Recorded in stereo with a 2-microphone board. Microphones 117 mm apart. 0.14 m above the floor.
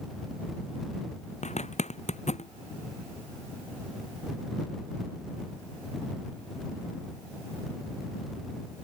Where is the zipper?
75° left (ahead or behind).